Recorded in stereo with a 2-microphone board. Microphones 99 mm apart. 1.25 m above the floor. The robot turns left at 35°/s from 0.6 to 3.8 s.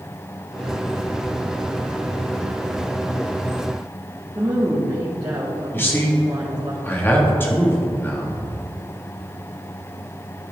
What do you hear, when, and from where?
4.3 s a woman speaking: 45° right (ahead or behind), 1.8 m
5.7 s a man speaking: 20° left (ahead or behind), 1.8 m